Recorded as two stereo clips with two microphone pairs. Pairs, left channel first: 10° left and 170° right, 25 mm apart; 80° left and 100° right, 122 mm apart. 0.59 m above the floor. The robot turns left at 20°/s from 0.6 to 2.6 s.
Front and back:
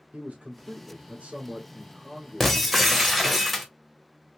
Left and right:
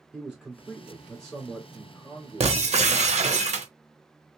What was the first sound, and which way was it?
A man speaking, 175° left.